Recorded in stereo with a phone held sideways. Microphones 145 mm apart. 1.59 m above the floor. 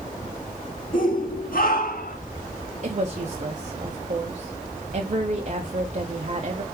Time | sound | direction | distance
0.9 | a shout | 65° left (ahead or behind) | 2 m
2.8 | a woman speaking | 50° right (ahead or behind) | 1.2 m